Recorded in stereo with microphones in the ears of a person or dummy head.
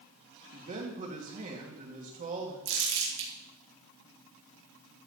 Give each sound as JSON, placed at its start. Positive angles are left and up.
{"t": 0.5, "sound": "a man speaking", "side_deg": -35, "distance_m": 2.5}
{"t": 2.6, "sound": "crumpling", "side_deg": -50, "distance_m": 3.5}